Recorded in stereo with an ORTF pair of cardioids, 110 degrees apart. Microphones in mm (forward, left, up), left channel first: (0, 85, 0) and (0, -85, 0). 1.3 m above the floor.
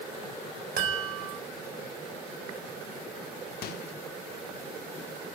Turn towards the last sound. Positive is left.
turn(degrees=70)